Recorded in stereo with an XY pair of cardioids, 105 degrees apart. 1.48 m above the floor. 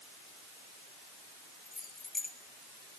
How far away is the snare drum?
I don't hear a snare drum.